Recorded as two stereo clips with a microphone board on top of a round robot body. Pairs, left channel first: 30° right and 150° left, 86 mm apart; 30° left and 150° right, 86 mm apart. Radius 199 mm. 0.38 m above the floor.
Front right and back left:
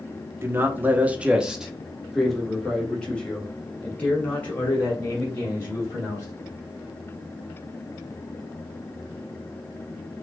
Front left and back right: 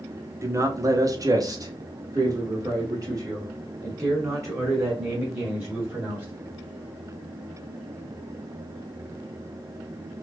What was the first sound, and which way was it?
A man speaking, 175° right.